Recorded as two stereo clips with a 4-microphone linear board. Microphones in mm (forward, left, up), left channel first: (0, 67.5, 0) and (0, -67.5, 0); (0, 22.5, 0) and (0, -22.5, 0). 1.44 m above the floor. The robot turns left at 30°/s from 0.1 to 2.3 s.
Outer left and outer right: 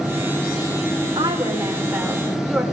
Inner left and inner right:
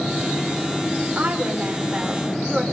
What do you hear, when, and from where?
1.0 s a woman speaking: 140° right, 6 m; by 2.6 s straight behind, 6 m